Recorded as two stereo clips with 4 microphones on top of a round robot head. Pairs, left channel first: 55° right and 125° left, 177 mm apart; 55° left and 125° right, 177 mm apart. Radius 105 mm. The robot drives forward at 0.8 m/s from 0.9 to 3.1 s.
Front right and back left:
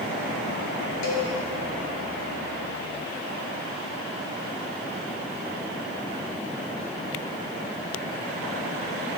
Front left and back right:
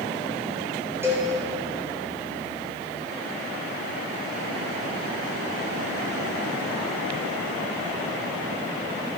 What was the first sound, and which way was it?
A cowbell, 50° right.